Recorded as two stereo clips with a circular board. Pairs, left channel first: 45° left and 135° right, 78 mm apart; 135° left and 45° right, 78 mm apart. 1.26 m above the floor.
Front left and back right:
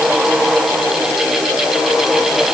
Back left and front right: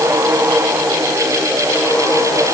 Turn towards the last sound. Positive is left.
No sound to turn to.